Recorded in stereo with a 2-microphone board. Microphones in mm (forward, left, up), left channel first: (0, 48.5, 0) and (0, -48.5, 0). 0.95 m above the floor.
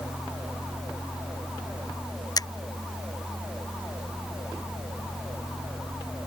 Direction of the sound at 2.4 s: 45° left (ahead or behind).